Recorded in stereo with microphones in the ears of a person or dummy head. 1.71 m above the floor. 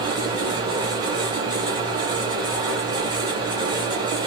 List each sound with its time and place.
0.0 s a fan: 20° right (ahead or behind), 0.8 m